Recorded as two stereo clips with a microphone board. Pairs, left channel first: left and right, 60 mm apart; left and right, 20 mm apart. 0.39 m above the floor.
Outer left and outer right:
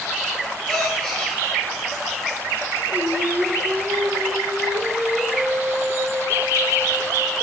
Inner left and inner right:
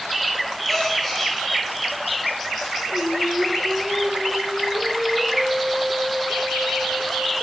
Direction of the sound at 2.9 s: 30° right (ahead or behind).